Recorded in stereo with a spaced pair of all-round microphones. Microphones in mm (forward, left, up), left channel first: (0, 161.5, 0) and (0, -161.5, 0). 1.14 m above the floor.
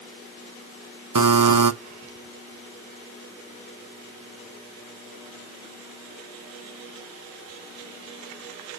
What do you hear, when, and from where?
1.1 s a buzzer: 85° right, 0.7 m